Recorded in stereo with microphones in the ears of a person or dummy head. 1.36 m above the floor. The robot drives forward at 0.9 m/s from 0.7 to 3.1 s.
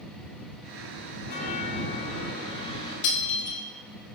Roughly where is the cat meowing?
I don't hear a cat meowing.